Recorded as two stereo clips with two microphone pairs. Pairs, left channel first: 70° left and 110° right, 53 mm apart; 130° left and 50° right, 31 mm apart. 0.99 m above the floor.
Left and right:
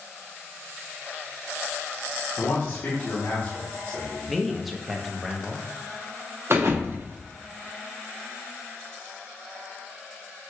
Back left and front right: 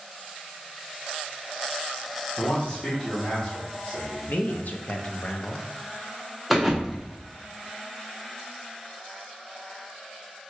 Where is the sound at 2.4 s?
85° left, 1.0 m.